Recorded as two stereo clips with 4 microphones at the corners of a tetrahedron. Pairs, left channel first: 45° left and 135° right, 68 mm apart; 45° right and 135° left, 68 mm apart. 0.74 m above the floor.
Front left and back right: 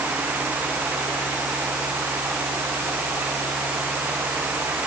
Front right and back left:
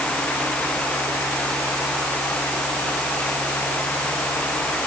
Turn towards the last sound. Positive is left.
No sound to turn to.